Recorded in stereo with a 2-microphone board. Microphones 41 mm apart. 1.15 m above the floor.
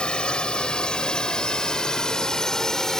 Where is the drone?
25° left (ahead or behind); by 3.0 s 15° left (ahead or behind).